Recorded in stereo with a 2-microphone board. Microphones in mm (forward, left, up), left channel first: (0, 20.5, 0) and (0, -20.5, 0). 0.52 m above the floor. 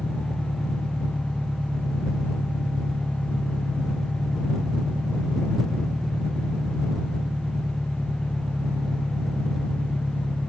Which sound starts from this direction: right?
An engine running, at 0.0 s.